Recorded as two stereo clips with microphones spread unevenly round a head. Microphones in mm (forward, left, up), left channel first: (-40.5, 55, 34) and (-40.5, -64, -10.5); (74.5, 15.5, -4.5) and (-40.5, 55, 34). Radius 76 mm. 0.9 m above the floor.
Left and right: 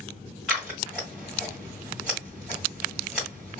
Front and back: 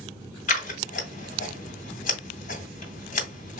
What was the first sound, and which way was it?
Scissors, 5° left.